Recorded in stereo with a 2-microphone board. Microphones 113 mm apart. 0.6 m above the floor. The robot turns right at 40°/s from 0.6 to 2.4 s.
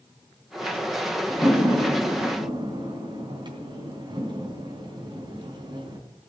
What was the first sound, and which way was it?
A door slam, centre (ahead or behind).